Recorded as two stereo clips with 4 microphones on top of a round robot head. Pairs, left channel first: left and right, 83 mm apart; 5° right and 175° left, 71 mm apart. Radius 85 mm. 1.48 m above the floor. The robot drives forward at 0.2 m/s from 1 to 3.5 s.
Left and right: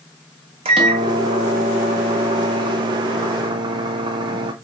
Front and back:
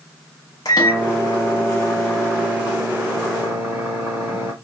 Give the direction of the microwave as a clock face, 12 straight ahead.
2 o'clock.